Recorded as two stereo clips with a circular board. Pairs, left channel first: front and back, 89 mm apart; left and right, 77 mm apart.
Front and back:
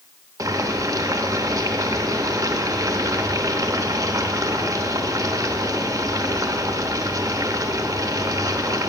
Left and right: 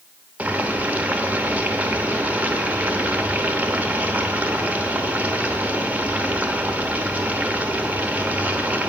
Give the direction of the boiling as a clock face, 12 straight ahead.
5 o'clock.